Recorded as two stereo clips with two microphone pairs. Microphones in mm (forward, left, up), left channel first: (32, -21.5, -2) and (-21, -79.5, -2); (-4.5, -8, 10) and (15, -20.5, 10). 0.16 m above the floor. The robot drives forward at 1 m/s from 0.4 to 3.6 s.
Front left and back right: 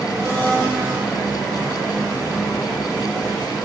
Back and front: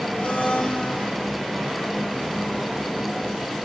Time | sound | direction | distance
0.1 | a blender | 175° left | 9 m